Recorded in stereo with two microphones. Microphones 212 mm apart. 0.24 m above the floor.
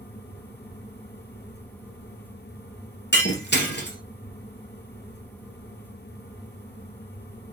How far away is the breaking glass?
About 2.5 m.